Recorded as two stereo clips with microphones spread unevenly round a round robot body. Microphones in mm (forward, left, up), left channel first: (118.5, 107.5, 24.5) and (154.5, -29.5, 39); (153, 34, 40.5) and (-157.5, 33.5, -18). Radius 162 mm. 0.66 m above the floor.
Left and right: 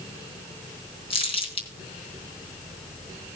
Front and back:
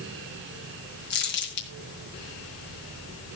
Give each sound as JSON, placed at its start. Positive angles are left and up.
{"t": 1.1, "sound": "crumpling", "azimuth_deg": 55, "distance_m": 4.0}